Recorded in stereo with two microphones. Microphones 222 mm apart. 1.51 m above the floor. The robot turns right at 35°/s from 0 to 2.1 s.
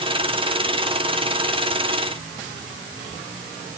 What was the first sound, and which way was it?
Only background noise.